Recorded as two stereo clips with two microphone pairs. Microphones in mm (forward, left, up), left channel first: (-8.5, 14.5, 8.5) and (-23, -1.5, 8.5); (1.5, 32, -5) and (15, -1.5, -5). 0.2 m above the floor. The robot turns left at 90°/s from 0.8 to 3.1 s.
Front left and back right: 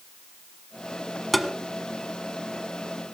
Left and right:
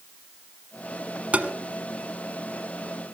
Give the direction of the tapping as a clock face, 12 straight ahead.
1 o'clock.